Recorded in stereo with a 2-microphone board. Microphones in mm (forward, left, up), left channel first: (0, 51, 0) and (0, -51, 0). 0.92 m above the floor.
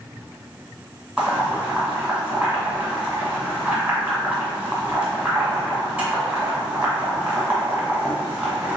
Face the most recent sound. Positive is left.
turn(degrees=-20)  # may be behind; listen again after turning